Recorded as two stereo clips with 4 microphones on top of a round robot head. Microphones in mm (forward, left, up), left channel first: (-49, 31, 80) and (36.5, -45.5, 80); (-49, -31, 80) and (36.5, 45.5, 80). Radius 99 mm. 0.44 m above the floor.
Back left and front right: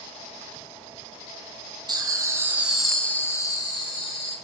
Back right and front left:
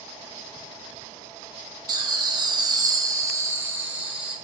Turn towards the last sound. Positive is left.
turn(degrees=120)